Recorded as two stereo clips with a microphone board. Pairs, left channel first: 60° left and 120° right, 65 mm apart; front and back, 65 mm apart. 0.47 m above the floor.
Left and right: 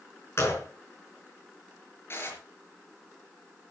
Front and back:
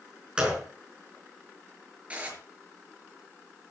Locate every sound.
0.4 s a gunshot: 105° left, 4.5 m
2.1 s dishes clattering: 110° left, 5 m